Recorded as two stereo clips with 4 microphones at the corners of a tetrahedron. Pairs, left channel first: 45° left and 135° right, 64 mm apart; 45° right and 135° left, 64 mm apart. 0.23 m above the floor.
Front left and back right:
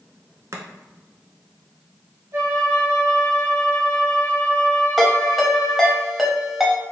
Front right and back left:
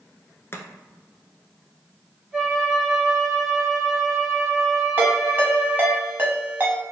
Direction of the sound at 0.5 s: 95° right.